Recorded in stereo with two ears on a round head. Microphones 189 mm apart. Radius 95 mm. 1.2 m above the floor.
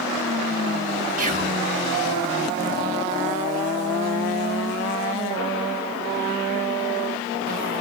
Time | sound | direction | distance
1.2 | whispering | 35° right (ahead or behind) | 1.7 m